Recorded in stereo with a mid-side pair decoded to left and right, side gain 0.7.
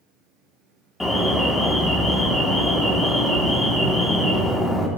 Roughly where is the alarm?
Ahead.